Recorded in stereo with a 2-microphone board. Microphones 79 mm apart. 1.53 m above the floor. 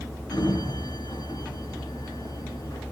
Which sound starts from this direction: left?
A sliding door, at 0.3 s.